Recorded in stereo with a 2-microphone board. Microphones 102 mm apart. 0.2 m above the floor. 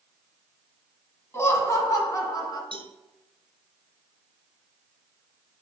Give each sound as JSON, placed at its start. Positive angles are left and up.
{"t": 1.3, "sound": "laughter", "side_deg": 25, "distance_m": 1.5}
{"t": 2.7, "sound": "a cowbell", "side_deg": -55, "distance_m": 1.2}